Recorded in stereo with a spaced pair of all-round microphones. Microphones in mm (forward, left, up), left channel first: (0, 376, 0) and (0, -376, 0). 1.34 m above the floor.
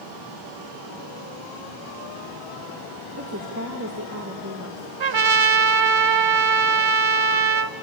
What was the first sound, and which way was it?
A woman speaking, 20° right (ahead or behind).